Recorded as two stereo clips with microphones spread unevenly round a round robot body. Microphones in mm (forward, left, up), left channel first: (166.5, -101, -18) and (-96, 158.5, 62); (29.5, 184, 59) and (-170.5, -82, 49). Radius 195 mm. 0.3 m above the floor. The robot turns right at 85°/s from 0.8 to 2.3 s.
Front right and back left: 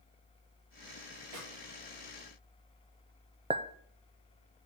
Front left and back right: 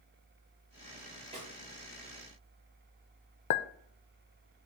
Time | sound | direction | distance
1.3 | a snare drum | 160° left | 5.5 m
3.5 | a clink | 50° left | 0.6 m